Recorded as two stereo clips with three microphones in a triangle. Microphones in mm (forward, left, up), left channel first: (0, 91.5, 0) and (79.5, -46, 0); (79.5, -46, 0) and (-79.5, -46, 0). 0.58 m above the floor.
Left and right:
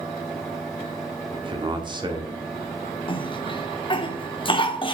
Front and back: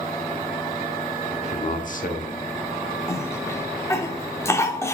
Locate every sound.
1.3 s a man speaking: 15° right, 1.0 m; by 2.5 s straight ahead, 1.5 m
3.1 s a cough: 70° left, 1.0 m